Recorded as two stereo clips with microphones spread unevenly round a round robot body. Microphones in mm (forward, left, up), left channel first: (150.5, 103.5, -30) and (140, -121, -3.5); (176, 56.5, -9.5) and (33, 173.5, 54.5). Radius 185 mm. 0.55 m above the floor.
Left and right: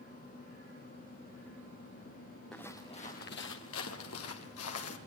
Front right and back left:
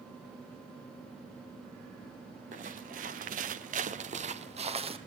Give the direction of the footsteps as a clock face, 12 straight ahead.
6 o'clock.